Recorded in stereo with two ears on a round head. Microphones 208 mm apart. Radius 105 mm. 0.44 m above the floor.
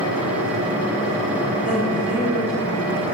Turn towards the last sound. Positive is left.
turn(degrees=-10)  # may be behind; listen again after turning